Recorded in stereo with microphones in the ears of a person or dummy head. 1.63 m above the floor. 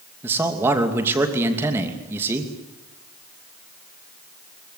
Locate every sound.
0.2 s a man speaking: 10° right (ahead or behind), 2.5 m